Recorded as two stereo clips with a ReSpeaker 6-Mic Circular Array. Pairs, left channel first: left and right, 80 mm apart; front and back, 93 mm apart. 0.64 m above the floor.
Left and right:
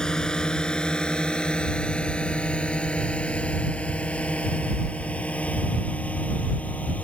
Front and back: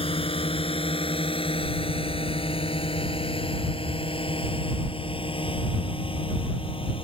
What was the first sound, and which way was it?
A drone, 10° left.